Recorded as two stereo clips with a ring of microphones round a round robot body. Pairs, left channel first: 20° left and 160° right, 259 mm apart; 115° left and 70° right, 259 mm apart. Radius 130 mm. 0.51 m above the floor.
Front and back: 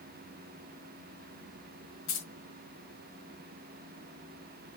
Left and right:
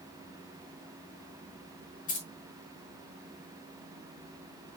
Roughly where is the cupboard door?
No cupboard door in this recording.